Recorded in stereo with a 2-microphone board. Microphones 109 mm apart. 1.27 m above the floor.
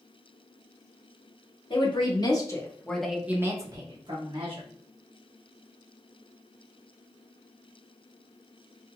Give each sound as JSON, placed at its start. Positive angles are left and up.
{"t": 1.7, "sound": "a woman speaking", "side_deg": 55, "distance_m": 1.1}